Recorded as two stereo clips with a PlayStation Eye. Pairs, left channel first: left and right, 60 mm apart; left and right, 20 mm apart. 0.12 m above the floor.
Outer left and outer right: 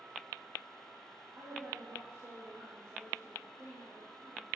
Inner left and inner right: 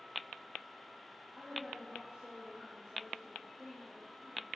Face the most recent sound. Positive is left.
turn(degrees=-55)  # may be behind; listen again after turning